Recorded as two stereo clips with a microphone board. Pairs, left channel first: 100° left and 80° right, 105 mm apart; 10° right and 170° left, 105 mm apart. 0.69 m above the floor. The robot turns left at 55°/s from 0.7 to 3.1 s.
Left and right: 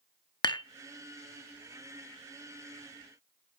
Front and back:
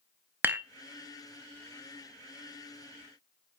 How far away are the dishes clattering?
About 0.6 m.